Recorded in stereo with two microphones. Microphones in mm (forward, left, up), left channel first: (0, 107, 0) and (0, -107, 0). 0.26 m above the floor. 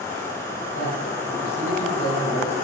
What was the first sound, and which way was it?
A man speaking, 80° left.